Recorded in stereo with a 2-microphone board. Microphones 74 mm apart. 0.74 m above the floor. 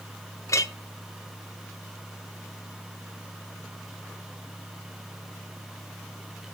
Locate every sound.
0.5 s a clink: 45° left (ahead or behind), 0.8 m